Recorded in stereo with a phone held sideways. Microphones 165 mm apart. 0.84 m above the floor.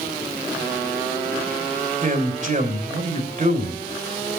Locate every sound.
2.0 s a man speaking: 50° right (ahead or behind), 3 m